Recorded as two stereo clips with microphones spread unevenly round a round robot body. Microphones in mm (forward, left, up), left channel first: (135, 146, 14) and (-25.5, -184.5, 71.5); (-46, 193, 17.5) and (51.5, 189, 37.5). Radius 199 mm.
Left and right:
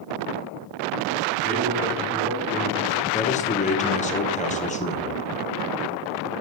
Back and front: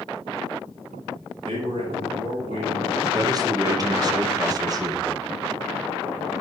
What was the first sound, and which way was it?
A man speaking, 50° right.